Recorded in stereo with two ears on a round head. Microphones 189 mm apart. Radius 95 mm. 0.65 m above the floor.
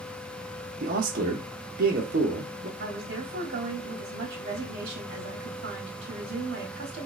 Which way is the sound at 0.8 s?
45° right (ahead or behind).